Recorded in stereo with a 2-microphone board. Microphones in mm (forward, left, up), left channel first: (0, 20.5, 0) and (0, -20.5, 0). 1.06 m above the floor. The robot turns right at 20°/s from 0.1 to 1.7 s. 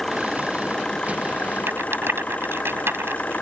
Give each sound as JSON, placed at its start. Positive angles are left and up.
{"t": 0.0, "sound": "an engine running", "azimuth_deg": 5}
{"t": 1.7, "sound": "a rattle", "side_deg": -75}